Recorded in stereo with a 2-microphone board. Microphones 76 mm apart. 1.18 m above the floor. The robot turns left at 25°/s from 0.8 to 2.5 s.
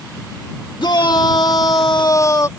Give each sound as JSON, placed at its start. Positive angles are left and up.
{"t": 0.8, "sound": "a shout", "azimuth_deg": 85}